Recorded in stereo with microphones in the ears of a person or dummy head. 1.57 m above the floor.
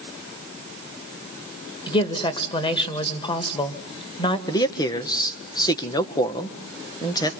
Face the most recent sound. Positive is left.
turn(degrees=20)  # may be behind; listen again after turning